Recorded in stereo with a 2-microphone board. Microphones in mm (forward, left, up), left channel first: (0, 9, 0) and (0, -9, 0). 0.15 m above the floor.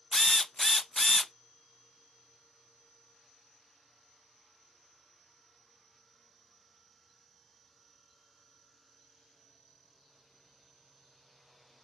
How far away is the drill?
About 0.5 m.